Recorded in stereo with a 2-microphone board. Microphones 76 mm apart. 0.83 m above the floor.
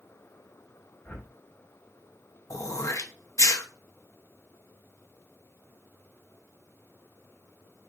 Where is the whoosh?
20° left (ahead or behind), 1.3 m.